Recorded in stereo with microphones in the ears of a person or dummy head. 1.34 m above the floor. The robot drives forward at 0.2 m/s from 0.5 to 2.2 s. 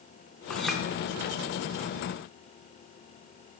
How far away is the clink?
About 0.7 m.